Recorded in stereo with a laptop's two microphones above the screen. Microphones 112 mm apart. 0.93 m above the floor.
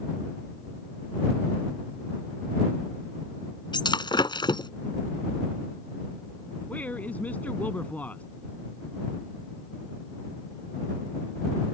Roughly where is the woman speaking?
Centre.